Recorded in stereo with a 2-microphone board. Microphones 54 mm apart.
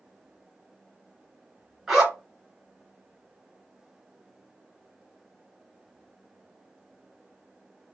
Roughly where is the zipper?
Centre.